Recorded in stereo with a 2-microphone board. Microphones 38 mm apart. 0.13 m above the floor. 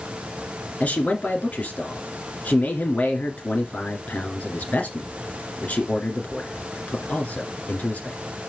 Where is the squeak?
I don't hear a squeak.